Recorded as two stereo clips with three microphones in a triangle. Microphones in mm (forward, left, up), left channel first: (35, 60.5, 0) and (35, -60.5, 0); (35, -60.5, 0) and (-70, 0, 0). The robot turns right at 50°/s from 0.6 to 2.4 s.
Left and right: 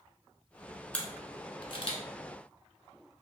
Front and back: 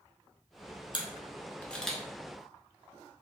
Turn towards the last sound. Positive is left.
turn(degrees=85)